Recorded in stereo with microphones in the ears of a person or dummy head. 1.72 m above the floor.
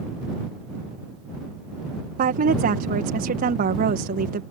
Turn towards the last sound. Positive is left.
turn(degrees=-50)  # may be behind; listen again after turning